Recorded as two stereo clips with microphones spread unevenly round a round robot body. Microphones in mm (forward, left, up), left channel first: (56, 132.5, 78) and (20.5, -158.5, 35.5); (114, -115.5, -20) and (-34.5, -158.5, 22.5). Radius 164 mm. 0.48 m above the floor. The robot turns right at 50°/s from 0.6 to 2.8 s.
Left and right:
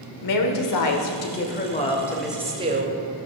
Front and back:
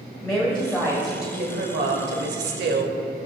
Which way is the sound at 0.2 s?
95° left.